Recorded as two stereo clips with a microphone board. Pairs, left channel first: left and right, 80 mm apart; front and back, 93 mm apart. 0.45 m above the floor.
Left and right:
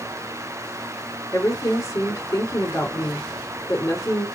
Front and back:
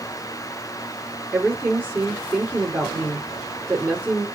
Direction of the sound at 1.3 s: 115° left.